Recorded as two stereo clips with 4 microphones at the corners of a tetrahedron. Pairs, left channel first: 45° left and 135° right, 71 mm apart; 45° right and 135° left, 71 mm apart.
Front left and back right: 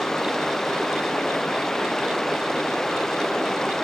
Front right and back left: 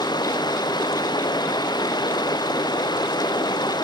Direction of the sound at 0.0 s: 40° right.